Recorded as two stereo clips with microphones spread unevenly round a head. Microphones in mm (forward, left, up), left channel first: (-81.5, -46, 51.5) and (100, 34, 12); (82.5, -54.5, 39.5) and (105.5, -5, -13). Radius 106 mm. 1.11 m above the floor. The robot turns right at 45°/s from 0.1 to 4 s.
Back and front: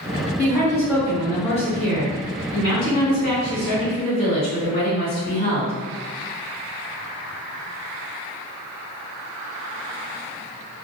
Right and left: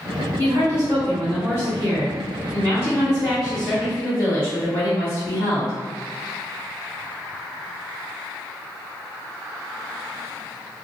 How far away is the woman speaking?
About 1.3 m.